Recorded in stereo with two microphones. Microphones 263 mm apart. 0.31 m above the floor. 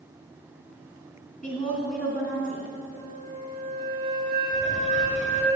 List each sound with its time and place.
1.4 s a woman speaking: 30° left (ahead or behind), 2.5 m
2.9 s a flute: 35° right (ahead or behind), 1.4 m
4.5 s a squeak: 25° left (ahead or behind), 1.0 m